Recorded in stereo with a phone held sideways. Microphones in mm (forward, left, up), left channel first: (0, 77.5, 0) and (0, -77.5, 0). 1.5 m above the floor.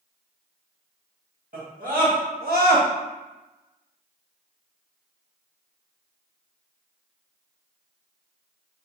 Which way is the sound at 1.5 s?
70° right (ahead or behind).